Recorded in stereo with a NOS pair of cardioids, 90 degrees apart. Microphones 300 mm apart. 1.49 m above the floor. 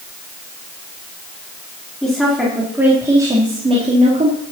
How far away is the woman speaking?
About 3.5 m.